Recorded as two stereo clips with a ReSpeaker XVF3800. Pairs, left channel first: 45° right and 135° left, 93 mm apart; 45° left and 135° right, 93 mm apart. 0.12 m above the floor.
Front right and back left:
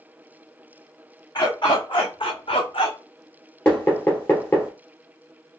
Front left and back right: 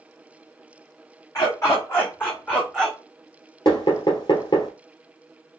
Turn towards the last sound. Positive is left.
turn(degrees=15)